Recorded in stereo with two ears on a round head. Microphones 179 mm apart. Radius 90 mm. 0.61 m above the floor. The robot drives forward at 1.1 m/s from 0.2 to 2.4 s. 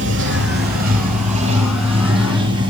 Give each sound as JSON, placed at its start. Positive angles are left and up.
{"t": 0.0, "sound": "running water", "side_deg": -65, "distance_m": 1.7}